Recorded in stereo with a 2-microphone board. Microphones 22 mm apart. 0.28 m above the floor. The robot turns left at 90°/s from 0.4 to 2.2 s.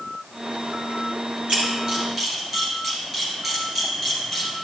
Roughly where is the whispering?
I don't hear whispering.